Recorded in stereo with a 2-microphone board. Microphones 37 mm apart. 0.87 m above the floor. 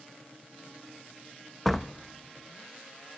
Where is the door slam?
5° left (ahead or behind), 0.6 m.